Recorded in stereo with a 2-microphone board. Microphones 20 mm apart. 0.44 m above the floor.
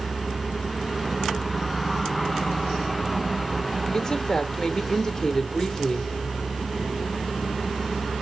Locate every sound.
3.9 s a woman speaking: 25° left (ahead or behind), 0.8 m